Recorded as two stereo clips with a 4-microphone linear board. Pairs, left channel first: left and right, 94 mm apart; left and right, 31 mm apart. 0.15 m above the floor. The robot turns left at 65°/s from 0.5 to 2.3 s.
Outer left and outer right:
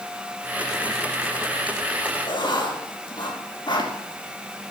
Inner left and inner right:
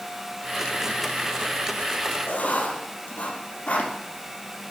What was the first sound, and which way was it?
Writing, 60° left (ahead or behind).